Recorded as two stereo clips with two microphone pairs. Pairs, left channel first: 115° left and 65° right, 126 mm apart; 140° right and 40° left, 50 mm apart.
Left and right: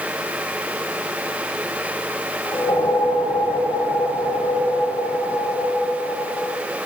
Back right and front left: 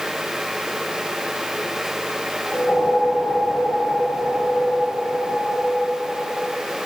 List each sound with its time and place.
2.4 s a whoosh: straight behind, 5.5 m